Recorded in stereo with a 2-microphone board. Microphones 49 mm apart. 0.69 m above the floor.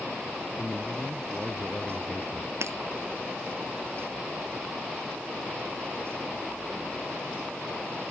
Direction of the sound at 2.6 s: 70° right (ahead or behind).